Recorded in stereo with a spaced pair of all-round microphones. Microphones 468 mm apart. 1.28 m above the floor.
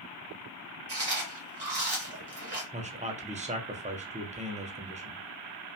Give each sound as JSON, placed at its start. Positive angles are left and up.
{"t": 0.9, "sound": "chewing", "side_deg": -55, "distance_m": 1.0}
{"t": 2.7, "sound": "a man speaking", "side_deg": -15, "distance_m": 0.5}